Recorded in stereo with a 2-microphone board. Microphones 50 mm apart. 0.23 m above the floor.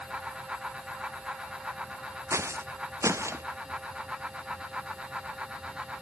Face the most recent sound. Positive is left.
turn(degrees=-60)  # may be behind; listen again after turning